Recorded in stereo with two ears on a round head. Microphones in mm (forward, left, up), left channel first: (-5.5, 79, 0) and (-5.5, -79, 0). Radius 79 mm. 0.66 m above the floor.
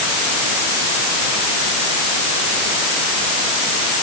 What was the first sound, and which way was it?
Only background noise.